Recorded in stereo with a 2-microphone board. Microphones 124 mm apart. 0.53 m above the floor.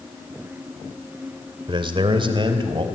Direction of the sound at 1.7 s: 40° right (ahead or behind).